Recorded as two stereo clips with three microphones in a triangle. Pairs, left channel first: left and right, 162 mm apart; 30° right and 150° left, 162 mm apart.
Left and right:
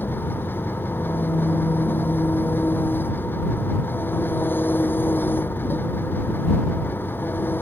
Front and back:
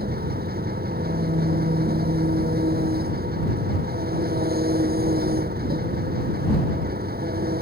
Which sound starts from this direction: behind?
An engine running, at 0.0 s.